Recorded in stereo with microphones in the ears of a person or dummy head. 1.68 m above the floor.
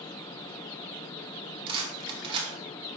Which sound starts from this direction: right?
A rattle, at 1.7 s.